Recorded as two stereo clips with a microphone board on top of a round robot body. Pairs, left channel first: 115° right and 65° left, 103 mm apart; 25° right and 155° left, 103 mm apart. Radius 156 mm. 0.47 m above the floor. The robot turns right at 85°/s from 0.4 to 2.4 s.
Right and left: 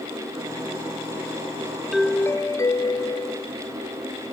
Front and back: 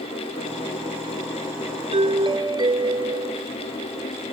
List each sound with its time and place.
1.9 s a doorbell: 155° left; by 3.5 s 165° right